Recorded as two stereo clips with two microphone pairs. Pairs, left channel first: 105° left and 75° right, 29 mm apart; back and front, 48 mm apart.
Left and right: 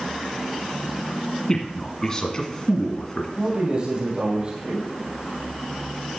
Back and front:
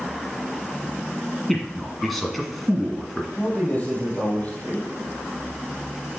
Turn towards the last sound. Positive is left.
turn(degrees=-120)